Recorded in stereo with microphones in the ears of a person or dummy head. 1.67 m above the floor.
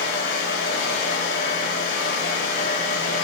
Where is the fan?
45° left (ahead or behind), 2.5 m.